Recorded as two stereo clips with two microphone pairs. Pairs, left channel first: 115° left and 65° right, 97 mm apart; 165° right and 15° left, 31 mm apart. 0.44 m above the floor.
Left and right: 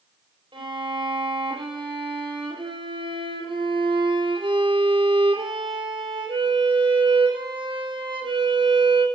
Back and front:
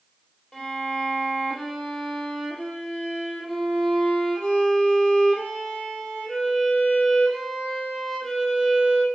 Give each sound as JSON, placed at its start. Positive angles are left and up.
{"t": 0.5, "sound": "a violin", "azimuth_deg": -90, "distance_m": 2.0}